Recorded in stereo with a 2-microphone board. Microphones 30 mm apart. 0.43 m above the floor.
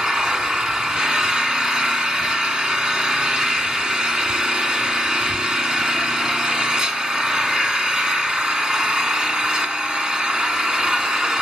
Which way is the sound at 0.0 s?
30° right (ahead or behind).